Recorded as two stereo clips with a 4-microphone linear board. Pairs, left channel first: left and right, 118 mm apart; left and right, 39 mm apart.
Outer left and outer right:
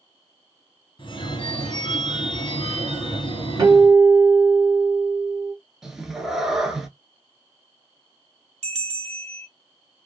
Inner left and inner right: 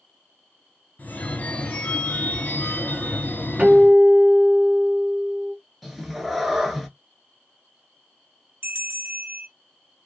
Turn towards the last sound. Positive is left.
turn(degrees=-65)  # may be behind; listen again after turning